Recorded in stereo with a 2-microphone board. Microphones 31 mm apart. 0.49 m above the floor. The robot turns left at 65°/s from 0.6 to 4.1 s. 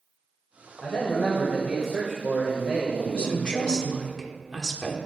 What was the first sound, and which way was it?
A man speaking, 85° left.